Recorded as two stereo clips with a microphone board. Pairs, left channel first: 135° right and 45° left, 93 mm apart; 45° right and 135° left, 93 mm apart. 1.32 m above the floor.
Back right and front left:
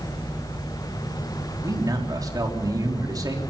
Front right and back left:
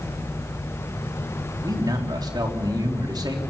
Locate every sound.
1.6 s a man speaking: 90° left, 3.5 m